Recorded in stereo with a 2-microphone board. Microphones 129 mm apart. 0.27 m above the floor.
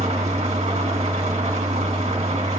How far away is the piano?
I don't hear a piano.